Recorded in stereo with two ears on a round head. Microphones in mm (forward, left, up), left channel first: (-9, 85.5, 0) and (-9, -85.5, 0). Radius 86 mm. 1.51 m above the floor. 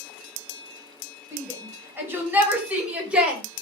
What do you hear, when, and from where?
1.3 s a shout: 15° right (ahead or behind), 8 m; by 3.4 s 5° right (ahead or behind), 6.5 m